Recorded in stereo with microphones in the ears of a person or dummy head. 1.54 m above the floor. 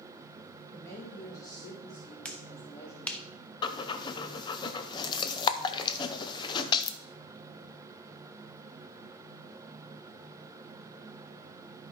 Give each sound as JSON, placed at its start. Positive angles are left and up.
{"t": 0.7, "sound": "a woman speaking", "side_deg": 15, "distance_m": 2.5}
{"t": 2.2, "sound": "a finger snap", "side_deg": 5, "distance_m": 0.6}
{"t": 3.6, "sound": "breathing", "side_deg": 25, "distance_m": 0.7}